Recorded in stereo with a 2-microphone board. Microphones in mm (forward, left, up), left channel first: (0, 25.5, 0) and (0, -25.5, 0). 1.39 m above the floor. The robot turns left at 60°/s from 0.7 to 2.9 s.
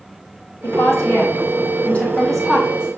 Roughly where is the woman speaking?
Left.